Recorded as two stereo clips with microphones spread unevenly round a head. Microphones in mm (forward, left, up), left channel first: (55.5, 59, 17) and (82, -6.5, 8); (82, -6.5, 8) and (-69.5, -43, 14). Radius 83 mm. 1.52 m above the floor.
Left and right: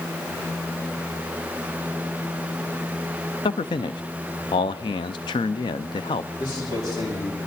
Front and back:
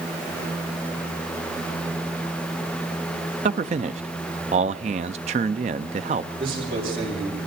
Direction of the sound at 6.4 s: 150° left.